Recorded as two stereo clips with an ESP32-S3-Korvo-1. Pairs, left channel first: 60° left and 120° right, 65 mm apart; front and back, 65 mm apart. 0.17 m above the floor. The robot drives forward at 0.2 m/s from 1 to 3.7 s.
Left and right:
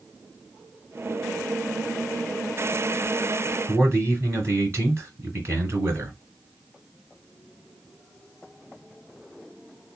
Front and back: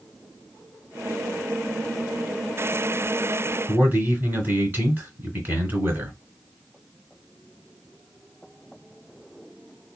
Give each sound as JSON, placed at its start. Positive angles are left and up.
{"t": 3.7, "sound": "a man speaking", "azimuth_deg": -135, "distance_m": 2.0}